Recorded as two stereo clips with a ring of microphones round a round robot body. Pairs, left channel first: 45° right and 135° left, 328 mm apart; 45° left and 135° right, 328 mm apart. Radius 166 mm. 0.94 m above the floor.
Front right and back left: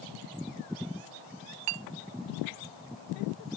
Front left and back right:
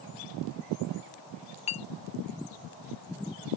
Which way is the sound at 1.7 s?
115° left.